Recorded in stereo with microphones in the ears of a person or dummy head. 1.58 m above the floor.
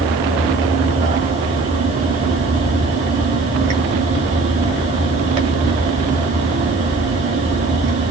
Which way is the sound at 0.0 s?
30° right (ahead or behind).